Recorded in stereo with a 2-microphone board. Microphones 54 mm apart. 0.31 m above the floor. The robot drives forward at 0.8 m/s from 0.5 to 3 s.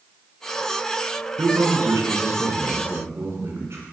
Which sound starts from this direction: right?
A man speaking, at 1.4 s.